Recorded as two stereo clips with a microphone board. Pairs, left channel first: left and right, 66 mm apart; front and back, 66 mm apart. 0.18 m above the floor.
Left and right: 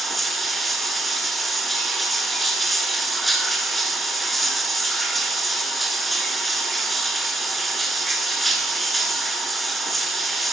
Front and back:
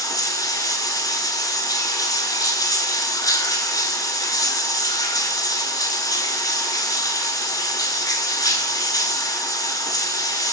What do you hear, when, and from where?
0.0 s running water: straight ahead, 1.0 m